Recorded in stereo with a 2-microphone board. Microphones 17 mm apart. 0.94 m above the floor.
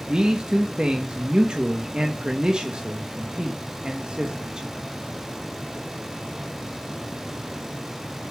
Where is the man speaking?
60° right (ahead or behind), 1.2 m.